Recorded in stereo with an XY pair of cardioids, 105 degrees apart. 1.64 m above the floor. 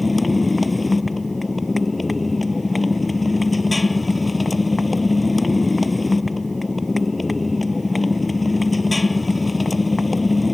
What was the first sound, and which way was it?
A motorcycle, 15° left.